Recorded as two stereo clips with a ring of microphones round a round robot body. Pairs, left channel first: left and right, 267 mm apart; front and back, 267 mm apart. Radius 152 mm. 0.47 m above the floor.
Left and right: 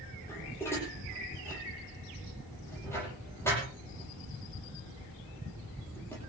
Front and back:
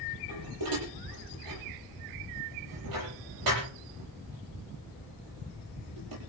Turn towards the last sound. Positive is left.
turn(degrees=170)